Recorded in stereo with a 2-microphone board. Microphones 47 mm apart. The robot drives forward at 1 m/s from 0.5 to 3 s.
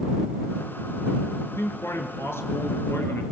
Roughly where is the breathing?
I don't hear breathing.